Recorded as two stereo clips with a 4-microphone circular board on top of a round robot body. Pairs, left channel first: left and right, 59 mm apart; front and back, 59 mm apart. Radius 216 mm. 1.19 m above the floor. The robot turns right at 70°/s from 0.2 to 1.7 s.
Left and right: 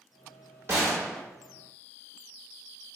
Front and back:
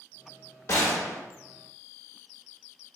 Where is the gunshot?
45° right, 0.9 m; by 1.2 s 10° right, 0.9 m.